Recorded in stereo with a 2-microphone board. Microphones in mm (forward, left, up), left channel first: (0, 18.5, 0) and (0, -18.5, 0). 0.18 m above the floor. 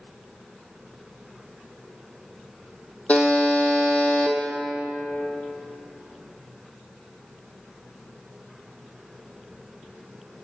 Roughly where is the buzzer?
Left.